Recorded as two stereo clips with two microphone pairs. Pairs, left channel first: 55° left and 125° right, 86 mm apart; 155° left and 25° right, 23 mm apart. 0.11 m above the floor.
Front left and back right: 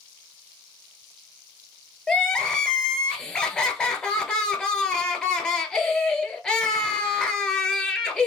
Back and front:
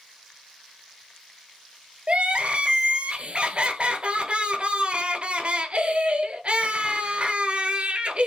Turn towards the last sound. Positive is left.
turn(degrees=-25)